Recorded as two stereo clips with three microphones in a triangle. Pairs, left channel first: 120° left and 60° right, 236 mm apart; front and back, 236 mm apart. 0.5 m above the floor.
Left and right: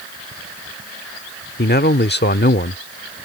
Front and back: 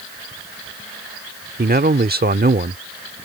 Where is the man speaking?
145° left.